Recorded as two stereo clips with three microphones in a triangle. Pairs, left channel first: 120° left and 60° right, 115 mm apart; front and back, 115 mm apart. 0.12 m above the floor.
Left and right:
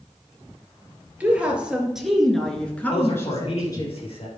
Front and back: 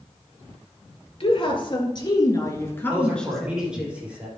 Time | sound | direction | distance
1.2 | a woman speaking | 15° left | 2 m
2.9 | a man speaking | 105° left | 3 m